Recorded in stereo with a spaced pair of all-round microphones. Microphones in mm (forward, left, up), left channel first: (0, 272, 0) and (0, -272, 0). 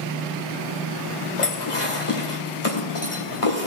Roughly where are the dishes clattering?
Left.